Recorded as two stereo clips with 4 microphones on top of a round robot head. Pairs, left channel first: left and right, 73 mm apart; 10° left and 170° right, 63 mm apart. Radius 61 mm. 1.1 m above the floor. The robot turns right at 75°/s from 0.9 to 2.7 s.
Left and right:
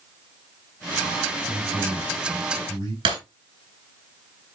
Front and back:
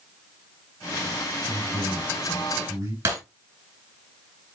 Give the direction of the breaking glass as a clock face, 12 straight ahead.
4 o'clock.